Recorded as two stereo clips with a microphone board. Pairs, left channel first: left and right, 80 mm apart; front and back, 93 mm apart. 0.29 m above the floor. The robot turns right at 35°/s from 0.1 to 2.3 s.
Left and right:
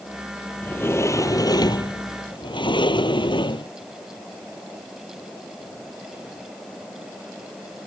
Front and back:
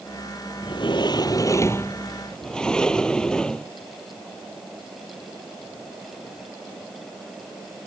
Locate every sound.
0.6 s a sliding door: 20° left; by 3.7 s 80° left